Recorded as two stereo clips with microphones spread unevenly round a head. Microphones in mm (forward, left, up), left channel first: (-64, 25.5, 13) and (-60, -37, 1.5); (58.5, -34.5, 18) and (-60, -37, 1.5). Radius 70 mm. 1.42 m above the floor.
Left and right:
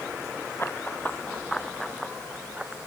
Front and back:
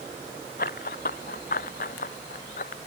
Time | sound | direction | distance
0.6 | running footsteps | 20° left | ?